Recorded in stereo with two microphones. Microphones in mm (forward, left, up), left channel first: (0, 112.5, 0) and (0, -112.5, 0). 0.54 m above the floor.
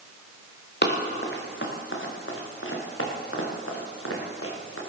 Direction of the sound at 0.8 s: 50° left (ahead or behind).